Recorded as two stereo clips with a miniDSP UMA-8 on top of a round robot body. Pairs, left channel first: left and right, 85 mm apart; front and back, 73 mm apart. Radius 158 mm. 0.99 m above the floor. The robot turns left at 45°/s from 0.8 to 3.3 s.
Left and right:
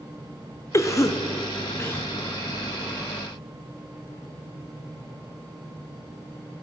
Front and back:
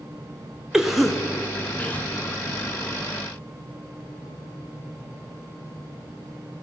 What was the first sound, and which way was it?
A cough, 100° left.